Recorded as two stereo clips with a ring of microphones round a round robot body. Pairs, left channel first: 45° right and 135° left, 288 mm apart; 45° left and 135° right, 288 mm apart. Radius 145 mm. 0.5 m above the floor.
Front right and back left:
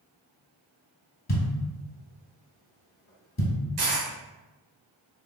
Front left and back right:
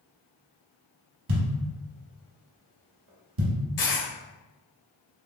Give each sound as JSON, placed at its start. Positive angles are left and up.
{"t": 1.3, "sound": "a thud", "azimuth_deg": -105, "distance_m": 1.1}
{"t": 3.8, "sound": "a dropped coin", "azimuth_deg": 100, "distance_m": 1.7}